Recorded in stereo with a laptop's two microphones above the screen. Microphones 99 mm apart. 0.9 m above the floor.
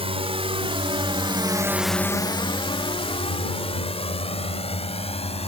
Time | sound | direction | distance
0.0 | a drone | 75° right (ahead or behind) | ?